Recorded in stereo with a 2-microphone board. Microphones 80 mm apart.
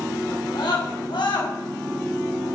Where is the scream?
65° left (ahead or behind), 5.5 m; by 1.5 s 75° left (ahead or behind), 4.5 m.